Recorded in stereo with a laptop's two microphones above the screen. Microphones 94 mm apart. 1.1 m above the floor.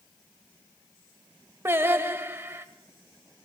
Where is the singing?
25° right (ahead or behind), 0.9 m.